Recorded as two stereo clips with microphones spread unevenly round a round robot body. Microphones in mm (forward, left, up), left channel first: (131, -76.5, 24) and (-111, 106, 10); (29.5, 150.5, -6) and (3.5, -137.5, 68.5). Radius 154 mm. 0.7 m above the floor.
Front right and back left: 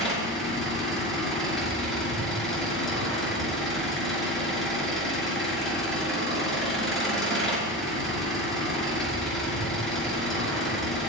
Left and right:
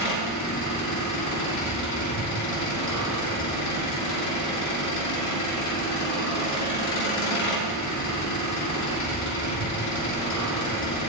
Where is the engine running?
50° left, 6 m.